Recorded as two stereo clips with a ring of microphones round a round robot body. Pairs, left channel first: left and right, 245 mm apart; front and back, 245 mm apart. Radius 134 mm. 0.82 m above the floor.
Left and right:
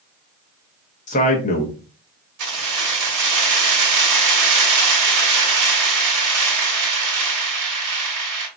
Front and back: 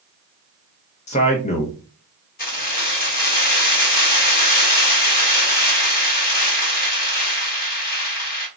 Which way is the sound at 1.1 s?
45° left.